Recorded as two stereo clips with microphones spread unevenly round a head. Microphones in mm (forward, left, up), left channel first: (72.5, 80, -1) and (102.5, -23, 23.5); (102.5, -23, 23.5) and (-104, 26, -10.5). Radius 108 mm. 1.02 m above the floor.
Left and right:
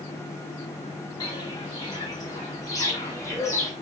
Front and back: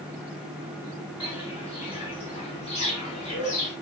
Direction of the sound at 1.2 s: 50° left.